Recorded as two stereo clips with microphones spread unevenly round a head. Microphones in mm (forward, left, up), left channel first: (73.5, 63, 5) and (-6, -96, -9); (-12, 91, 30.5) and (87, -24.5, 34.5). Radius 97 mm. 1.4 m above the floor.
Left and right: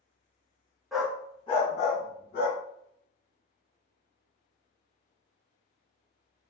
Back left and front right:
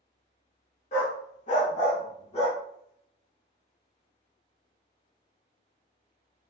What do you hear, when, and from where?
0.9 s a dog barking: 150° left, 0.9 m; by 2.6 s 85° left, 1.6 m